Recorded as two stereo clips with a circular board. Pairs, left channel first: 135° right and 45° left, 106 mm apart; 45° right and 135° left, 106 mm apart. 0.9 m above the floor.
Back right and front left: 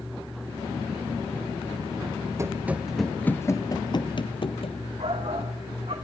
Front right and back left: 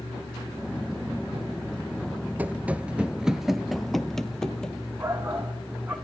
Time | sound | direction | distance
2.4 | running footsteps | 75° left | 1.0 m
5.0 | a shout | 60° left | 2 m